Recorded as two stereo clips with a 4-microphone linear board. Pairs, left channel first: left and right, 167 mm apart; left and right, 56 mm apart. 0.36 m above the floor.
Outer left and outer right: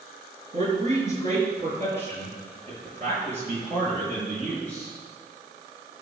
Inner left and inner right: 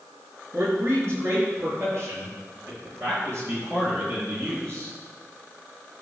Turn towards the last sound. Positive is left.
turn(degrees=-40)  # may be behind; listen again after turning